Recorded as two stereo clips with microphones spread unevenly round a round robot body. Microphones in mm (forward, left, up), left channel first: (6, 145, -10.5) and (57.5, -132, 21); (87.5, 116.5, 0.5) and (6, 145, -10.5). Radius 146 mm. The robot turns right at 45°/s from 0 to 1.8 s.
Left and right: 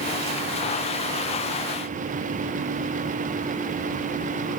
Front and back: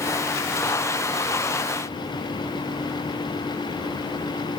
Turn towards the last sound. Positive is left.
No sound to turn to.